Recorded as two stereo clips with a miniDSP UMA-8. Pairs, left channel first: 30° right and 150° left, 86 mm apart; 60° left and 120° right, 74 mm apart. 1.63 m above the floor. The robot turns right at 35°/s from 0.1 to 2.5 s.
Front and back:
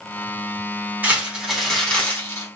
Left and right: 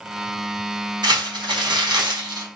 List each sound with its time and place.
1.0 s crumpling: 140° right, 5 m; by 2.5 s 90° right, 5 m